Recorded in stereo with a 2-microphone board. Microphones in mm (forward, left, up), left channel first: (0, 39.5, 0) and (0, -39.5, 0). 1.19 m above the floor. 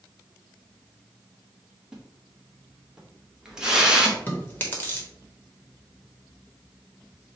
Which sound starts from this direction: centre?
A splash, at 1.9 s.